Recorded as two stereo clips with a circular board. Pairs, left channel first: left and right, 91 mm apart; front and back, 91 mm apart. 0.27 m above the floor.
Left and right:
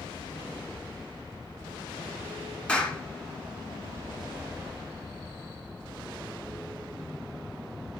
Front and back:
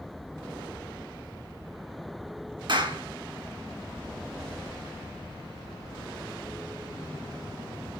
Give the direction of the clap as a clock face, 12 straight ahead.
6 o'clock.